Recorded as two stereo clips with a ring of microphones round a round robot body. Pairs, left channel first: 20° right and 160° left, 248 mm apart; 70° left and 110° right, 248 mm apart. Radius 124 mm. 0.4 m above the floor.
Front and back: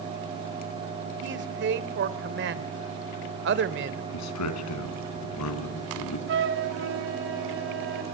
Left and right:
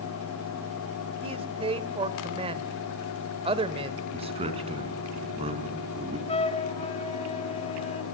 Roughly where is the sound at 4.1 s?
Ahead right.